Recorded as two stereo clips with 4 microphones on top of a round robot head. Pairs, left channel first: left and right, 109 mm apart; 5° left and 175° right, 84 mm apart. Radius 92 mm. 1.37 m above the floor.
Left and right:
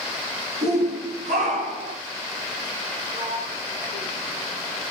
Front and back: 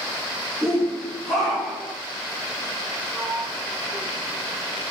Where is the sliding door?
95° right, 6 m.